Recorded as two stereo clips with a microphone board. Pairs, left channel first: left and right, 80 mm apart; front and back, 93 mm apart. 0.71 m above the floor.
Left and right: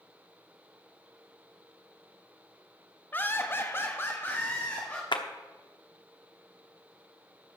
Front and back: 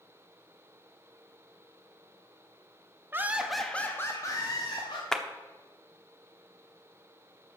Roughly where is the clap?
Left.